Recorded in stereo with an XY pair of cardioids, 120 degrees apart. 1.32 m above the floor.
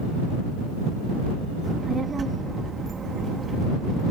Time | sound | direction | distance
1.6 | a child speaking | 30° right | ?